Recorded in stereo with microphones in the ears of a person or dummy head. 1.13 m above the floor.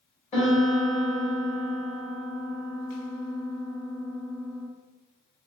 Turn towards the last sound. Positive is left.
turn(degrees=35)  # may be behind; listen again after turning